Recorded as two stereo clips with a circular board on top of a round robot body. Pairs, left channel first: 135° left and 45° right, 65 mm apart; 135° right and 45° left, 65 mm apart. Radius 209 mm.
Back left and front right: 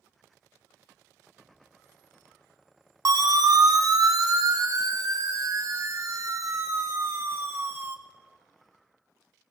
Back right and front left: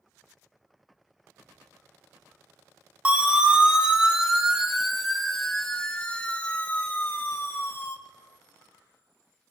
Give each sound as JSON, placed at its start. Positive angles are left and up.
{"t": 3.0, "sound": "a siren", "azimuth_deg": -25, "distance_m": 3.5}